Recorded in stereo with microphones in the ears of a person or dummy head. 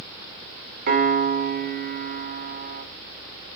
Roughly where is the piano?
Right.